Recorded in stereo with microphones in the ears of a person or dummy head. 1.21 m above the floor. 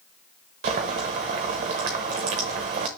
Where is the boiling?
30° right (ahead or behind), 1.0 m.